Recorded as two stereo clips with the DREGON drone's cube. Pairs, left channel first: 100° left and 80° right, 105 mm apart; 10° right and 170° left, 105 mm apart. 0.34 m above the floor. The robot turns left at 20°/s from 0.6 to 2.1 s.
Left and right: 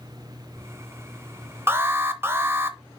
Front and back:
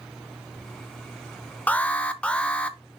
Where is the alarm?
65° right, 0.7 m; by 2.8 s 75° right, 0.7 m.